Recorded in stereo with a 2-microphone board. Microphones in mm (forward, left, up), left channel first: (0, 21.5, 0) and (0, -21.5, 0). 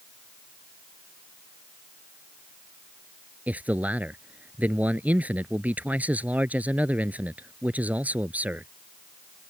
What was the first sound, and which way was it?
A man speaking, 35° right (ahead or behind).